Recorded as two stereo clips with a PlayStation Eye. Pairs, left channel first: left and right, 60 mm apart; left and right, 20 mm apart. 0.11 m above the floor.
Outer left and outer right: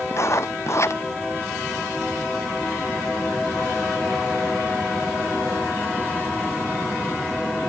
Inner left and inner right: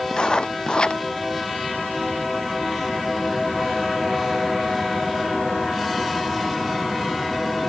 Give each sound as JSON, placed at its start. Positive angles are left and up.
{"t": 0.1, "sound": "writing", "side_deg": 50}